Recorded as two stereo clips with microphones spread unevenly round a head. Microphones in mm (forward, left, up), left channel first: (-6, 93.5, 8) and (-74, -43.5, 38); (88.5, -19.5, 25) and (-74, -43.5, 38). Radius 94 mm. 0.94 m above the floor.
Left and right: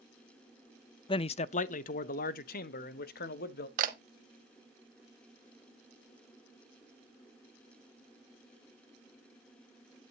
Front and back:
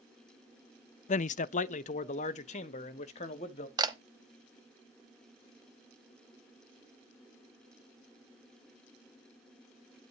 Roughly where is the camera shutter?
Behind right.